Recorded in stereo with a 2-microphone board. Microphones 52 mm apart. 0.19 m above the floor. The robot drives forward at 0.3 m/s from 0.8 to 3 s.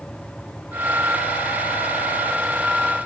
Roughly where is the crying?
I don't hear crying.